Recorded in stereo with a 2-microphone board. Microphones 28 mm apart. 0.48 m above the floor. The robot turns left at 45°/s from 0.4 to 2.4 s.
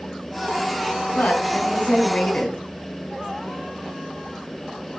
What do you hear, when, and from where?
1.1 s a woman speaking: 90° left, 4 m; by 2.6 s 35° left, 4 m